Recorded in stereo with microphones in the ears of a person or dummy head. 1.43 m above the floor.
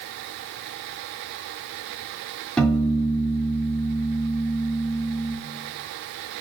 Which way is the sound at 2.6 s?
5° left (ahead or behind).